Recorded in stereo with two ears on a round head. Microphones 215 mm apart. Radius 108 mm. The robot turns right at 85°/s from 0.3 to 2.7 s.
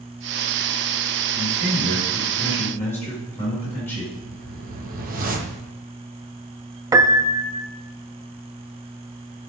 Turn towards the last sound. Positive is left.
turn(degrees=-15)  # may be behind; listen again after turning